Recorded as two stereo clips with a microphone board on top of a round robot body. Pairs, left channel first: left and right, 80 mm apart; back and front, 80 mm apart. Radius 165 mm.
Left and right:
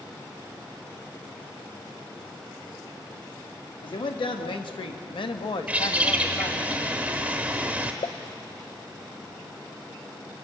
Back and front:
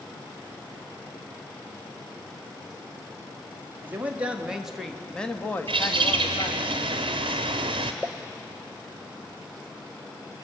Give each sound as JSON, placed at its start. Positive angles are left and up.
{"t": 3.8, "sound": "a man speaking", "azimuth_deg": 65, "distance_m": 2.0}
{"t": 5.7, "sound": "a bird", "azimuth_deg": -15, "distance_m": 1.0}
{"t": 8.0, "sound": "a pop", "azimuth_deg": 85, "distance_m": 0.8}